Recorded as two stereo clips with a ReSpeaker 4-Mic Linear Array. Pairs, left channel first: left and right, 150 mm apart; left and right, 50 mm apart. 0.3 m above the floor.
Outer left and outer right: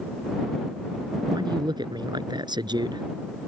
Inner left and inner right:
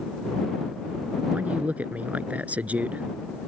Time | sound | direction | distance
1.3 | a man speaking | 30° right (ahead or behind) | ?